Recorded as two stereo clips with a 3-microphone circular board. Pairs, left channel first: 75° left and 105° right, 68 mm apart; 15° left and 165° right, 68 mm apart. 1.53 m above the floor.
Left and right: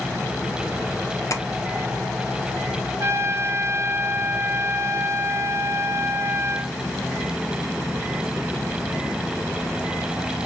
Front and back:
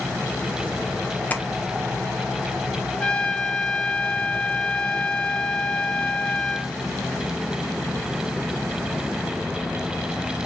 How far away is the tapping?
About 0.5 m.